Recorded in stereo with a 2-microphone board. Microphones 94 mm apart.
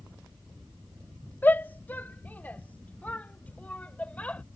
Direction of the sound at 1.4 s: 20° left (ahead or behind).